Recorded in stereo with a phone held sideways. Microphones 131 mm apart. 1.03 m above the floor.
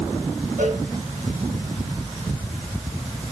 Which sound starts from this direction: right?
A cowbell, at 0.6 s.